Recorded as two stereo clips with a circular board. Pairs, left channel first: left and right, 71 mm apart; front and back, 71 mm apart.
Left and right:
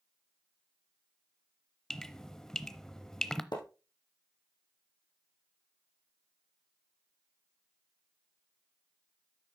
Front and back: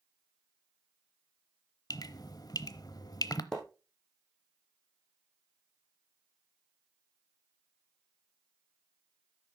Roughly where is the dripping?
Ahead.